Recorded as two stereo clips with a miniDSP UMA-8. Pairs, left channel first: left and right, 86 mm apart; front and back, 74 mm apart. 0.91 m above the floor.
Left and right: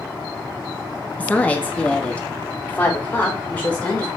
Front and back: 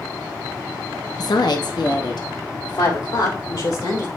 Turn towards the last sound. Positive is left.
turn(degrees=20)